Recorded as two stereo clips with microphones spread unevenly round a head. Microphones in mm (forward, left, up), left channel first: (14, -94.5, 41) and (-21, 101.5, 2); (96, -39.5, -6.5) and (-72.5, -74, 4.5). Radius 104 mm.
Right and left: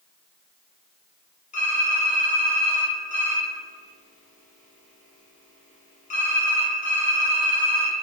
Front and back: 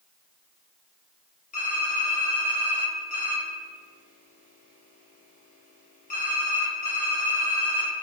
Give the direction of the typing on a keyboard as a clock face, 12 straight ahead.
1 o'clock.